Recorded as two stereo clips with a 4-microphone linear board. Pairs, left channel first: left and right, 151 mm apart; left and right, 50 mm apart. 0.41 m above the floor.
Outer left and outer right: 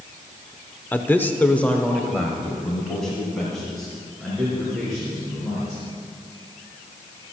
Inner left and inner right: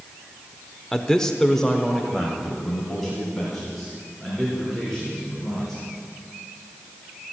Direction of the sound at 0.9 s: 10° left (ahead or behind).